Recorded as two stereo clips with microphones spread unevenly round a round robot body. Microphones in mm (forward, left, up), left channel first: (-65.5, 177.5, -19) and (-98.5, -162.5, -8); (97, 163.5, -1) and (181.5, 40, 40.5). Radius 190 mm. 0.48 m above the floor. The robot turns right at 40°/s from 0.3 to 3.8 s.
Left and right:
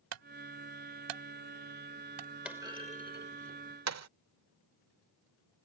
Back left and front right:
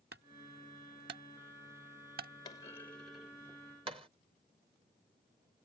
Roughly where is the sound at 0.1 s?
Behind right.